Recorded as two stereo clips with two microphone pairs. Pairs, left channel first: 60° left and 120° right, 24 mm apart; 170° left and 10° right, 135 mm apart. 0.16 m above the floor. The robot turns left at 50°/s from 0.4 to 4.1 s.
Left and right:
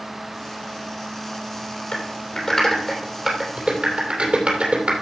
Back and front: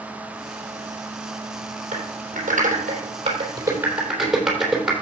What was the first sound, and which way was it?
Typing on a keyboard, 15° left.